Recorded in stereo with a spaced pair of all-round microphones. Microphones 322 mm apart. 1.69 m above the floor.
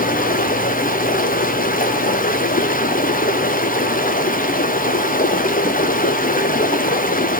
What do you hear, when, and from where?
0.0 s running water: 25° left (ahead or behind), 0.9 m